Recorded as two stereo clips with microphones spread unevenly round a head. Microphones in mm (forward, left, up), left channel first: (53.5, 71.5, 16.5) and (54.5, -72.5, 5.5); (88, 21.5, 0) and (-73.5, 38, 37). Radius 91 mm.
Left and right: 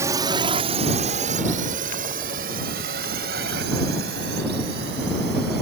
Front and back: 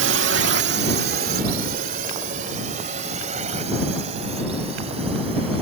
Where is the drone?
165° right; by 5.6 s 125° right.